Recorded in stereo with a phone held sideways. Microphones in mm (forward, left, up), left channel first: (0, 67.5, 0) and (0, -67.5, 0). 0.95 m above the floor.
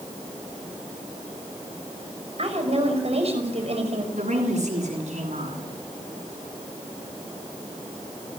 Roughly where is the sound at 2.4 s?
Right.